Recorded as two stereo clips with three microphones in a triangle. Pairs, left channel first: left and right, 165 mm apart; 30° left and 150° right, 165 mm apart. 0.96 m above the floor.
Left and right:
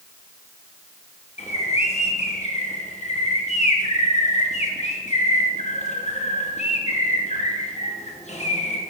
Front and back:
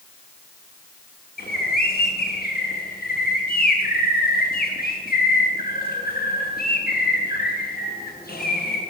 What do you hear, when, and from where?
1.4 s a bird: 45° left, 1.3 m